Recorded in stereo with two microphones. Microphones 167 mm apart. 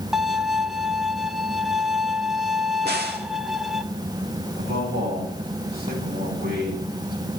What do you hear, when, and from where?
0.1 s a violin: centre (ahead or behind), 0.6 m
2.8 s a crack: 80° right, 2.0 m
4.6 s a man speaking: 70° right (ahead or behind), 6.5 m